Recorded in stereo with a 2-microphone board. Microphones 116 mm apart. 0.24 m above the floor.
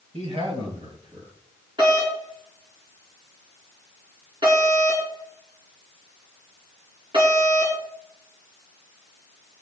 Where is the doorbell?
45° right (ahead or behind), 4.5 m.